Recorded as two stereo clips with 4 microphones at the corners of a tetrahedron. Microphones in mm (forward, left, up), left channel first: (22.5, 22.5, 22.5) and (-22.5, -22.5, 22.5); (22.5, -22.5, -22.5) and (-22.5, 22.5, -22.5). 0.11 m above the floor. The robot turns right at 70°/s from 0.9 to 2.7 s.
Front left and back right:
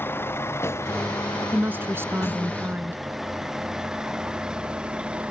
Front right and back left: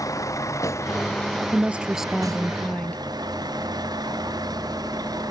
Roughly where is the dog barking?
No dog barking in this recording.